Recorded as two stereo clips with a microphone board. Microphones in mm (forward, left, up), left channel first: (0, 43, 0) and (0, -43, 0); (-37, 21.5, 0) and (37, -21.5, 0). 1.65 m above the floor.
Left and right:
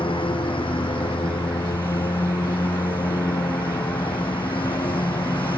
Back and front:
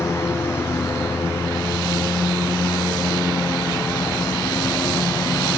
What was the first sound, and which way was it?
A lawn mower, 90° left.